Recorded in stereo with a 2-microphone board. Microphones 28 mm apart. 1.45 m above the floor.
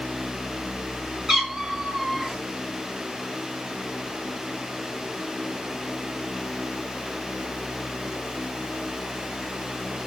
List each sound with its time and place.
1.3 s a cat meowing: 25° right (ahead or behind), 1.3 m